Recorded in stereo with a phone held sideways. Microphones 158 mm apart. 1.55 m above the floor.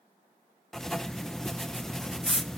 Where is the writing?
5° left (ahead or behind), 0.6 m.